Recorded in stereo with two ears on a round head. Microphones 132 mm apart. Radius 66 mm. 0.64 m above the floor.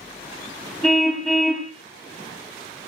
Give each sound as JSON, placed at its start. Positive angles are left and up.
{"t": 0.8, "sound": "a car horn", "side_deg": 0, "distance_m": 2.5}